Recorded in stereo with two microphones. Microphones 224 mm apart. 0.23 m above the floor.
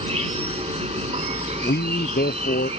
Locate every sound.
0.0 s an insect: 30° right (ahead or behind)
1.6 s a man speaking: 50° left (ahead or behind)